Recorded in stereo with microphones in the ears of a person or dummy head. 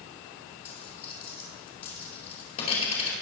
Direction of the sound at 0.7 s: 35° left (ahead or behind).